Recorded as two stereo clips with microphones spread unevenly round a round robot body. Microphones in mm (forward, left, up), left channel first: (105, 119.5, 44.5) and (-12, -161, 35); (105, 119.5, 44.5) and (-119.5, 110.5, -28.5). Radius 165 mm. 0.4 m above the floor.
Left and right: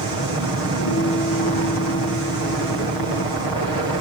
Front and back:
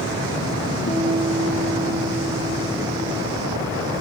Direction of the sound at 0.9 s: 45° left.